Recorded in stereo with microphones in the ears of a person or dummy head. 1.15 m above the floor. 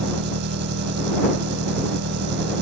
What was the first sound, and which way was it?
An engine running, 55° right (ahead or behind).